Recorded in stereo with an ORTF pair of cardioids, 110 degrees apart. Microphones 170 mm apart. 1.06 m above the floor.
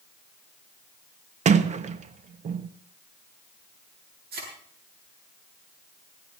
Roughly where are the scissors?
No scissors in this recording.